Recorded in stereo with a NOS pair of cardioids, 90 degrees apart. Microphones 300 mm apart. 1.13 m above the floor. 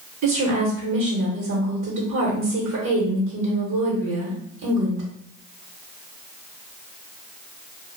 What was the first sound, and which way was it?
A woman speaking, 70° right.